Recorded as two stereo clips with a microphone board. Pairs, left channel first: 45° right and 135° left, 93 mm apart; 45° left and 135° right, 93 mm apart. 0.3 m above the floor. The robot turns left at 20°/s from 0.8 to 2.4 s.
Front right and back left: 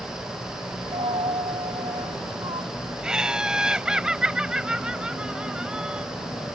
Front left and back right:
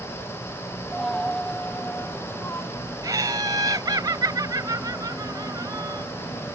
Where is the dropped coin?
140° left; by 2.7 s 110° left.